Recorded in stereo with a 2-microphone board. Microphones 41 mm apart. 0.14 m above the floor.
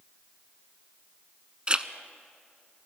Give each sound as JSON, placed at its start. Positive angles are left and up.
{"t": 1.7, "sound": "a zipper", "side_deg": -25, "distance_m": 0.6}